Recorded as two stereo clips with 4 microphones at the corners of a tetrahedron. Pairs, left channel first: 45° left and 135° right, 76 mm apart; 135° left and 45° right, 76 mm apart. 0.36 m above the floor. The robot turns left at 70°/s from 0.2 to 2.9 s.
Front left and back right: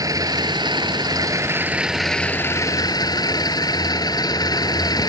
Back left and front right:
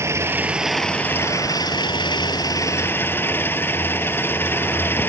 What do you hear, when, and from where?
0.0 s an engine running: 95° right; by 5.1 s 75° left